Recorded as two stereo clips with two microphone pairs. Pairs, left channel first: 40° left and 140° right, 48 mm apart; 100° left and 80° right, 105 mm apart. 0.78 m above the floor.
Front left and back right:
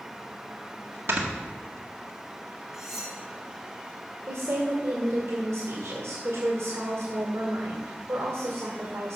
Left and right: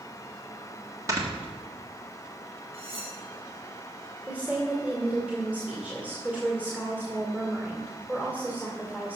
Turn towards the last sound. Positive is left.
turn(degrees=-155)